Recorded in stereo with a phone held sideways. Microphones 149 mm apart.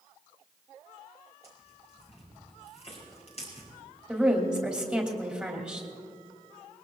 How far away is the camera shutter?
I don't hear a camera shutter.